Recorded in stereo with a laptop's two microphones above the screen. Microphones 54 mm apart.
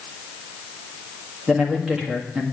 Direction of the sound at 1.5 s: 15° right (ahead or behind).